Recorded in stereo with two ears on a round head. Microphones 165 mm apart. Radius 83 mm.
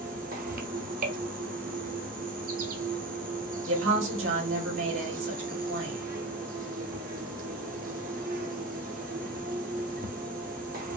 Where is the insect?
45° right (ahead or behind), 0.8 m.